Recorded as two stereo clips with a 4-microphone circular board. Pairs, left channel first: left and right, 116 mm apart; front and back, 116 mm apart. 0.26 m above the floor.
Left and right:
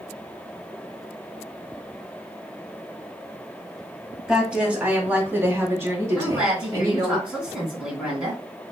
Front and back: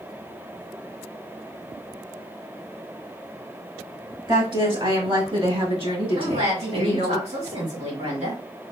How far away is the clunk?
No clunk in this recording.